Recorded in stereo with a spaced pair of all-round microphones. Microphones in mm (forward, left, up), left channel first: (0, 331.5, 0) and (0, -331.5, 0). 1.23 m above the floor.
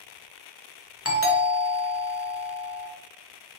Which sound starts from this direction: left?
A doorbell, at 1.1 s.